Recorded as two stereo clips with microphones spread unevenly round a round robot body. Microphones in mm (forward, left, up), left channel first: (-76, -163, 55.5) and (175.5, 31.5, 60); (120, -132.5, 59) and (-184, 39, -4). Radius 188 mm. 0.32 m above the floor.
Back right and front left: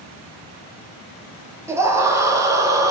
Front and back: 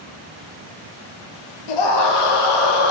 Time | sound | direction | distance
1.7 | a scream | 45° right | 8.5 m